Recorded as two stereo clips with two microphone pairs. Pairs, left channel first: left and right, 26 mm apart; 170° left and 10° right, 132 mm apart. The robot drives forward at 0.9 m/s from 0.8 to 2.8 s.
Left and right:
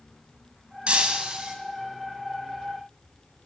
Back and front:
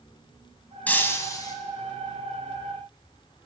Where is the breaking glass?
115° right, 1.5 m; by 1.6 s 135° right, 1.8 m.